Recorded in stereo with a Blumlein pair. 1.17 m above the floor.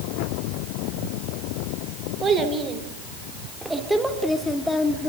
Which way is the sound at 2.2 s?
20° right.